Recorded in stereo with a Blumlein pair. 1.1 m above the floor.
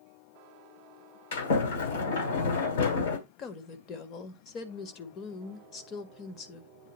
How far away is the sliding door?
About 2.5 m.